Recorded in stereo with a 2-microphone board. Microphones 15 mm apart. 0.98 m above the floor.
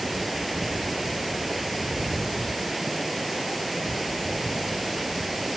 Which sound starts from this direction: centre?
Running water, at 0.0 s.